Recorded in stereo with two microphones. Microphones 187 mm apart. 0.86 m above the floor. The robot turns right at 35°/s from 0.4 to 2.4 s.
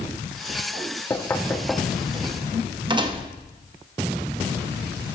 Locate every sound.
1.1 s knocking: 20° left (ahead or behind), 0.6 m; by 3.3 s 25° right (ahead or behind), 0.6 m